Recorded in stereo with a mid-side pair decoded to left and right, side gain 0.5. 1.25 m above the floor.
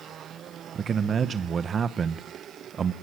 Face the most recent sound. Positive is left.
turn(degrees=-40)